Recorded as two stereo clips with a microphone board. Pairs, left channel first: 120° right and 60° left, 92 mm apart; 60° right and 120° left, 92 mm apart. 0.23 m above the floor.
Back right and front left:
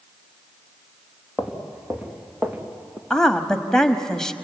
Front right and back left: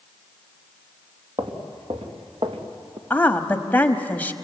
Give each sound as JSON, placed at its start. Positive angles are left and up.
{"t": 1.4, "sound": "footsteps", "azimuth_deg": 145, "distance_m": 3.0}
{"t": 3.1, "sound": "a woman speaking", "azimuth_deg": -50, "distance_m": 1.1}